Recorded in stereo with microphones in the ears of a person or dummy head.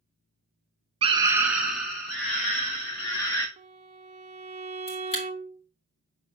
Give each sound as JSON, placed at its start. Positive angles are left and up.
{"t": 1.0, "sound": "a scream", "side_deg": -30, "distance_m": 0.6}
{"t": 3.6, "sound": "a violin", "side_deg": -35, "distance_m": 0.6}
{"t": 4.9, "sound": "a camera shutter", "side_deg": 25, "distance_m": 1.9}